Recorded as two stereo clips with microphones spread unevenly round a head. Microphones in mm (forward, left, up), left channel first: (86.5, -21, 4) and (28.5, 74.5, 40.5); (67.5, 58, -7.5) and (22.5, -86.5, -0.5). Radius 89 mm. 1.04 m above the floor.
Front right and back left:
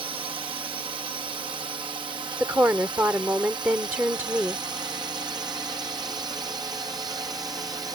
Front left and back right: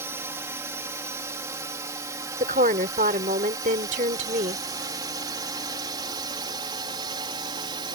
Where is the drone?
Straight behind; by 8.0 s 165° right.